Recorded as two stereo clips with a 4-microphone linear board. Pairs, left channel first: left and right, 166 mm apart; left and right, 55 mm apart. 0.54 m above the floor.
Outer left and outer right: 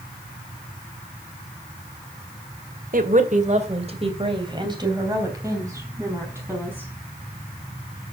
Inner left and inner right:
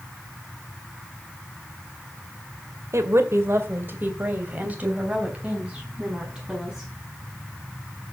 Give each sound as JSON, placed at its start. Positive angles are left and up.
{"t": 2.9, "sound": "a woman speaking", "side_deg": -55, "distance_m": 2.0}